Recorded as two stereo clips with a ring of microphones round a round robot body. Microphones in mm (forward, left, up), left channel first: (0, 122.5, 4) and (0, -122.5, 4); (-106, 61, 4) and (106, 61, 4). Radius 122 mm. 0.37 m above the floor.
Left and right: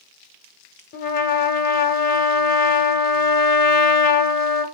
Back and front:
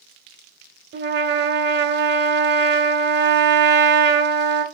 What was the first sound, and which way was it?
A trumpet, 40° left.